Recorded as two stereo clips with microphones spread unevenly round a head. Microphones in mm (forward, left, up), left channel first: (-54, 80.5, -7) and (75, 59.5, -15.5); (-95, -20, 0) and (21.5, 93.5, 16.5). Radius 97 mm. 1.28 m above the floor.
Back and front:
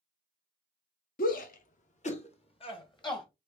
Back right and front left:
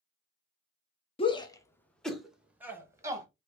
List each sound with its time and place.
1.2 s a shout: 170° left, 0.9 m; by 3.3 s 115° left, 1.5 m